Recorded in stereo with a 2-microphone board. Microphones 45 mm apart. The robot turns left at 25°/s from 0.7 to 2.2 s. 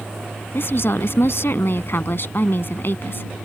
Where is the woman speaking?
105° left; by 3.3 s 65° left.